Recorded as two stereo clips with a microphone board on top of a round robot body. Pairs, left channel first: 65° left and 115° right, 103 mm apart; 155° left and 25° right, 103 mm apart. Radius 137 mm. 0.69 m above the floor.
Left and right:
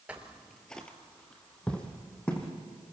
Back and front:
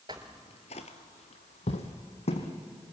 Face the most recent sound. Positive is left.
turn(degrees=150)